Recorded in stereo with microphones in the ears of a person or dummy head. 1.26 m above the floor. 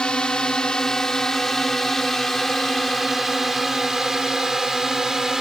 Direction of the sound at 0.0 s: 5° left (ahead or behind).